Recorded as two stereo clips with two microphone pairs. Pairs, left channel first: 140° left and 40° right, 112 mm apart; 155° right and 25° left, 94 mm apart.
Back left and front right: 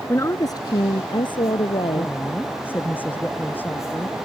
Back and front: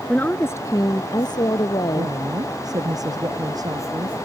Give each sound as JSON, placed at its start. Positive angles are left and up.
{"t": 0.1, "sound": "a woman speaking", "azimuth_deg": 145}
{"t": 1.9, "sound": "a woman speaking", "azimuth_deg": 70}